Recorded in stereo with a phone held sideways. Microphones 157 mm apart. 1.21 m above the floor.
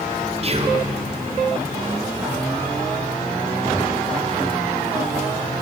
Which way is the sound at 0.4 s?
40° right (ahead or behind).